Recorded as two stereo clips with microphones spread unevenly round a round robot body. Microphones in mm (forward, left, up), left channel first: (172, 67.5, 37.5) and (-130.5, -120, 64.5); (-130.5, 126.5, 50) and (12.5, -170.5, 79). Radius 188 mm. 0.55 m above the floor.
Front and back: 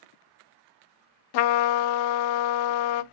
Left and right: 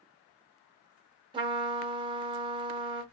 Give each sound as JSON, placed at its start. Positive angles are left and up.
{"t": 1.3, "sound": "a trumpet", "azimuth_deg": 15, "distance_m": 0.6}